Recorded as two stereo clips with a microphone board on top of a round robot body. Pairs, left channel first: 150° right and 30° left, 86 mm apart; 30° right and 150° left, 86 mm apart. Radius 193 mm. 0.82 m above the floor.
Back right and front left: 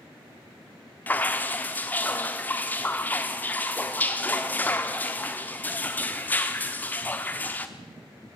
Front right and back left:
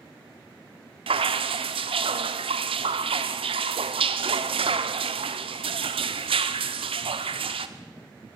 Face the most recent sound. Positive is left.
turn(degrees=135)